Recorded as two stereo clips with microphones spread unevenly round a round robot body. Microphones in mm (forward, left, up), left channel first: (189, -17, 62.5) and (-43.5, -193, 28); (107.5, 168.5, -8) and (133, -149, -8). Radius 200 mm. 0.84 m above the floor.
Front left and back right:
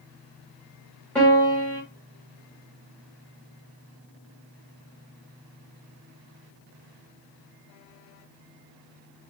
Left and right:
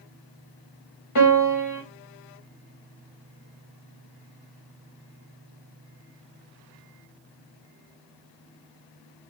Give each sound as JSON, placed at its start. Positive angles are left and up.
{"t": 1.1, "sound": "a piano", "azimuth_deg": 125, "distance_m": 0.8}